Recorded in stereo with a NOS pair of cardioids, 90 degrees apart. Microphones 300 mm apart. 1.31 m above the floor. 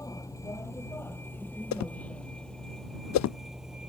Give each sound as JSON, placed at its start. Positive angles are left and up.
{"t": 0.0, "sound": "a vehicle", "azimuth_deg": 10}
{"t": 1.7, "sound": "a whoosh", "azimuth_deg": 65}